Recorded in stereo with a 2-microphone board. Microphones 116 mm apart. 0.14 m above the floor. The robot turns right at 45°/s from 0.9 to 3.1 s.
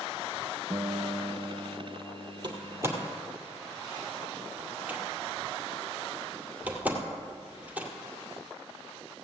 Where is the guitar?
40° right, 0.9 m; by 3.1 s 60° left, 0.9 m.